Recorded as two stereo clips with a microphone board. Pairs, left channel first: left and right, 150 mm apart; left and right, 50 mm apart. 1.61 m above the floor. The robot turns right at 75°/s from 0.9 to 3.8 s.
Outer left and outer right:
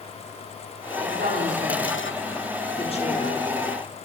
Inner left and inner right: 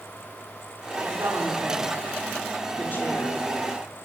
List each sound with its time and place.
1.0 s a woman speaking: 80° right, 4.5 m; by 3.4 s 75° left (ahead or behind), 4.5 m